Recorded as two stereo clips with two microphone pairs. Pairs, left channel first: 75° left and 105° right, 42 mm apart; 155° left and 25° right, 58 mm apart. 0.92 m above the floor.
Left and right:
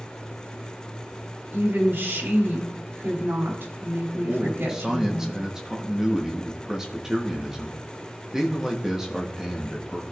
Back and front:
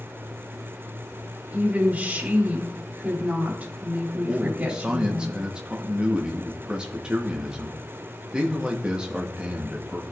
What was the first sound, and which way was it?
A woman speaking, 85° right.